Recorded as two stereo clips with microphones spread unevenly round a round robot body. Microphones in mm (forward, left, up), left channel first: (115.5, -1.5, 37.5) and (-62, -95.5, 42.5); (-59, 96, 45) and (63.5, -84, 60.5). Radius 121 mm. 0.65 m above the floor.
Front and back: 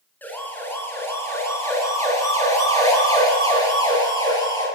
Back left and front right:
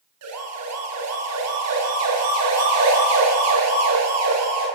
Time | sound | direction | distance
0.2 | a siren | 55° right | 8 m